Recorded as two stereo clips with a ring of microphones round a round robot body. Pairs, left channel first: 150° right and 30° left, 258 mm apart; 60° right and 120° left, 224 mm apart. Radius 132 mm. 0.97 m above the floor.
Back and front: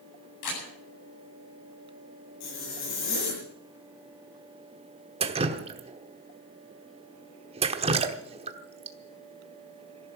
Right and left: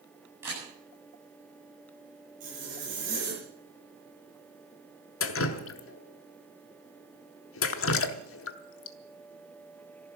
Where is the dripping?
40° right, 1.0 m.